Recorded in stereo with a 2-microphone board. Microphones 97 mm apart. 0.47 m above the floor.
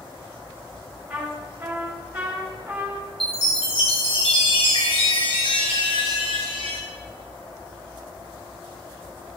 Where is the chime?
75° left (ahead or behind), 2.0 m.